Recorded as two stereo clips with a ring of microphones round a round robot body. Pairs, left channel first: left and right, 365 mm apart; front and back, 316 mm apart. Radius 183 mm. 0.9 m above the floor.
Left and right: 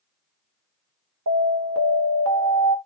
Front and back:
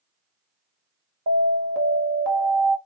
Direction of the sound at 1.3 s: 135° right.